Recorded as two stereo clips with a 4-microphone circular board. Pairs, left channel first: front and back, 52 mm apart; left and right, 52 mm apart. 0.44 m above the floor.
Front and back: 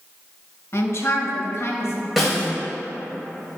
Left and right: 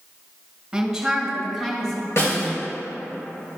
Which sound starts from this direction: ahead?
A woman speaking, at 0.7 s.